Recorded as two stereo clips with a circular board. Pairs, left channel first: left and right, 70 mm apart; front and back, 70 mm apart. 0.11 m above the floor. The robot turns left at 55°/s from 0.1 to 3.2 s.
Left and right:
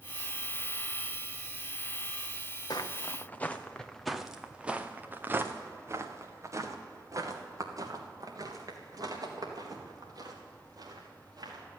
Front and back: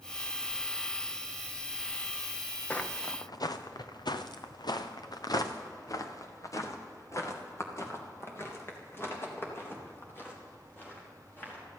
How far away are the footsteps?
About 1.2 m.